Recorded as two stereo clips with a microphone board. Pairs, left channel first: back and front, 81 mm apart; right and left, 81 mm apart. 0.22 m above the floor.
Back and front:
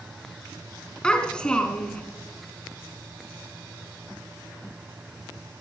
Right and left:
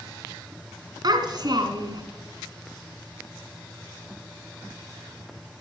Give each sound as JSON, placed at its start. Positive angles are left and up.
{"t": 1.0, "sound": "a child speaking", "azimuth_deg": 105, "distance_m": 1.9}